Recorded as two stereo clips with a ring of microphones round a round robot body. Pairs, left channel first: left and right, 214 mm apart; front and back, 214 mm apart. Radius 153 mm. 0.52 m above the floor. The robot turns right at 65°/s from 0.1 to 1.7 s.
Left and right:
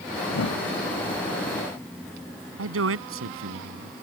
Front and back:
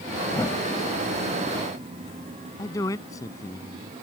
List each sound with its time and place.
0.3 s a whoosh: 70° left; by 0.6 s 90° left
2.6 s a man speaking: 80° right